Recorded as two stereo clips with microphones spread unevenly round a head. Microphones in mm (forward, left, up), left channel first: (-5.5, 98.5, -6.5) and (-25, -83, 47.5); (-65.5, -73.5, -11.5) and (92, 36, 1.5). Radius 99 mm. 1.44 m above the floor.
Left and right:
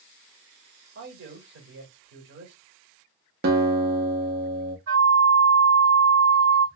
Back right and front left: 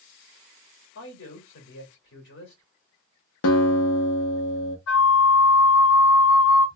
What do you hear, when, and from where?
0.9 s a man speaking: 120° right, 2 m
3.4 s a guitar: 130° right, 1.0 m
4.9 s a flute: 125° right, 1.8 m